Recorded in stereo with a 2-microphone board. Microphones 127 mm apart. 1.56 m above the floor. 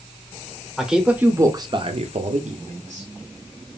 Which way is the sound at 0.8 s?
Centre (ahead or behind).